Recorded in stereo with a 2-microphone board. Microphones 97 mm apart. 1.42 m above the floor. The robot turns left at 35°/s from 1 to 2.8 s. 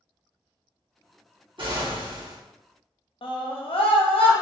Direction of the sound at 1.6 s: 60° right (ahead or behind).